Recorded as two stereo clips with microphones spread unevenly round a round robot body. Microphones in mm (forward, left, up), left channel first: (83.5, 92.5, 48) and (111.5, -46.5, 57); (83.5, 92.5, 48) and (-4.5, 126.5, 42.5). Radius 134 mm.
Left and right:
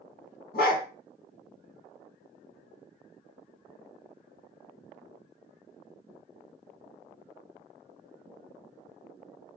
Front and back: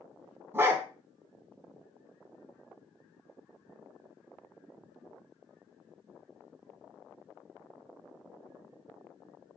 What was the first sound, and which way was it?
A dog barking, 90° left.